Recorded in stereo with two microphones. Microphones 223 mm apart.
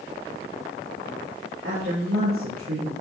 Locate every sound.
1.6 s a woman speaking: 75° right (ahead or behind), 4.5 m